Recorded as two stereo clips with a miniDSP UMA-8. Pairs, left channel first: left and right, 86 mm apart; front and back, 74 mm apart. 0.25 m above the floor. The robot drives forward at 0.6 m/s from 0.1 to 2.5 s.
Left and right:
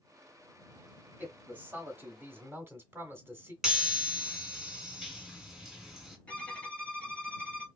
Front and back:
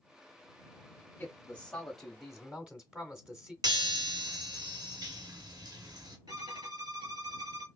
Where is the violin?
165° left, 1.1 m.